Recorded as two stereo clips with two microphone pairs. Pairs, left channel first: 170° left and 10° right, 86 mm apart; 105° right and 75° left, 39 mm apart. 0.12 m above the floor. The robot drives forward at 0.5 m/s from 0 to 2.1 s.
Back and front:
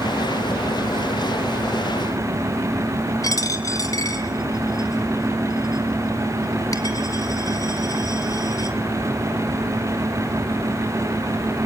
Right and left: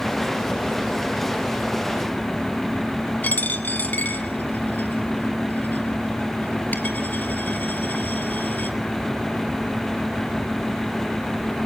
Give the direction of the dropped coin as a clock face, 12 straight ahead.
5 o'clock.